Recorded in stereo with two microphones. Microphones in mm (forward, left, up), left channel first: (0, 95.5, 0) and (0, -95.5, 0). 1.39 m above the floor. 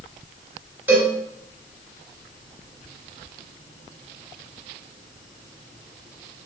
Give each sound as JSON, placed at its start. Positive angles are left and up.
{"t": 0.9, "sound": "a cowbell", "side_deg": -10, "distance_m": 1.2}